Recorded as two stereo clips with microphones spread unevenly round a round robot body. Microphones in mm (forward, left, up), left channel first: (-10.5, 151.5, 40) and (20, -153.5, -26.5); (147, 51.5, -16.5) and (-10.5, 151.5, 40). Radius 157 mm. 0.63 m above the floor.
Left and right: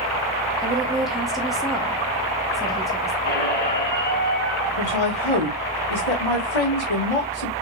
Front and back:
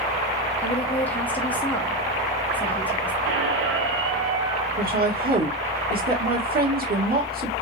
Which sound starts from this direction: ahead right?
A woman speaking, at 0.6 s.